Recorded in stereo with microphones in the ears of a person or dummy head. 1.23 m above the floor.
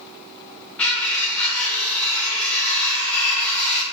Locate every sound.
0.8 s cutlery clinking: 5° left (ahead or behind), 0.6 m